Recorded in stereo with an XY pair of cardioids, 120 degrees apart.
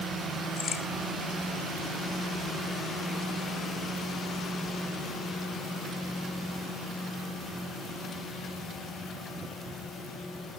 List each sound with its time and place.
0.6 s a crack: 40° left, 4 m